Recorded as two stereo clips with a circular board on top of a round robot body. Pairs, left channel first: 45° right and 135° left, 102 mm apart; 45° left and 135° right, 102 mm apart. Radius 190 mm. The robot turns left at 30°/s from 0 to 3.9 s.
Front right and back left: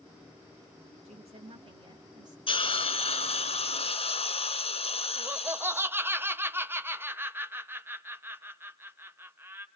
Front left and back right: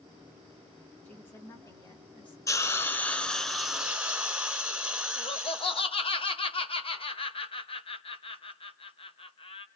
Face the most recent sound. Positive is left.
turn(degrees=65)